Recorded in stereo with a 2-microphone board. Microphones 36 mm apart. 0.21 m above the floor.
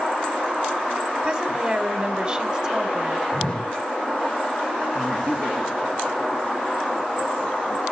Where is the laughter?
40° left (ahead or behind), 1.9 m.